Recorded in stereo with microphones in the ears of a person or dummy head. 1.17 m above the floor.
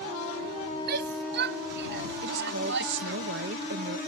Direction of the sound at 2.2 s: 65° right (ahead or behind).